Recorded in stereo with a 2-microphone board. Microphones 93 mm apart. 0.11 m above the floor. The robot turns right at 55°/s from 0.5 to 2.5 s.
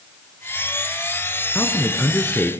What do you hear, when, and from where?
1.6 s a man speaking: 15° left (ahead or behind), 1.1 m; by 2.5 s 20° left (ahead or behind), 1.1 m